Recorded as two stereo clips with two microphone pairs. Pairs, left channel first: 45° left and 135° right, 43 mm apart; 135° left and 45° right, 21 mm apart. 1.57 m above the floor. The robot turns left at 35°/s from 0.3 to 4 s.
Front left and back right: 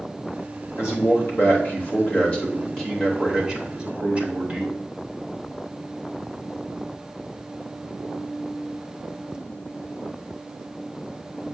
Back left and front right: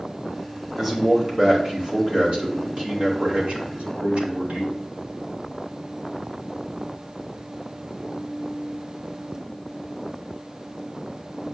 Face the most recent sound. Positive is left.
turn(degrees=-75)